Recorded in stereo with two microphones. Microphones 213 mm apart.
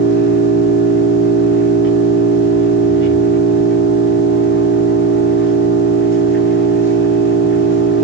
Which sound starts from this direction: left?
An engine running, at 0.0 s.